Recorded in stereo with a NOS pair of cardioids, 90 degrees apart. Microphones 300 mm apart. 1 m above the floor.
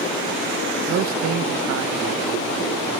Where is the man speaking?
40° right, 0.6 m; by 3.0 s 65° right, 1.9 m.